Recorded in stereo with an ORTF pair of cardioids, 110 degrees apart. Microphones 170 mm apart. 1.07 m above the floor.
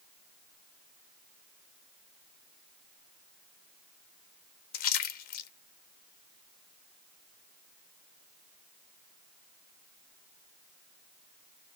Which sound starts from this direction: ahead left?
A splash, at 4.7 s.